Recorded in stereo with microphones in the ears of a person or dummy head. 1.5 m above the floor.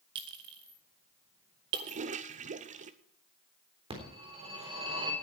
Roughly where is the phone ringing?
Right.